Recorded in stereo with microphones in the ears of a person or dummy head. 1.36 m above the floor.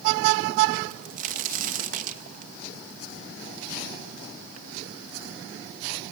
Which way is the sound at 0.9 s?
45° right (ahead or behind).